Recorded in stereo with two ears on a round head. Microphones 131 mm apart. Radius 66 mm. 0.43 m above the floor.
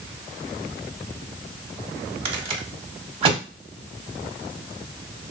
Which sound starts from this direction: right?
A rattle, at 2.2 s.